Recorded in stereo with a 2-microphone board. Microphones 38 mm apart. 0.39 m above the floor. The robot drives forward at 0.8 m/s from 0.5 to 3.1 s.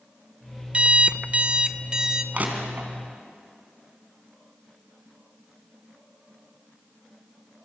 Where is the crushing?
40° right (ahead or behind), 3.5 m; by 2.9 s 45° right (ahead or behind), 3 m.